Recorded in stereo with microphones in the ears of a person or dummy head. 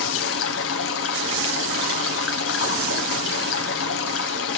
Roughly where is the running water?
Left.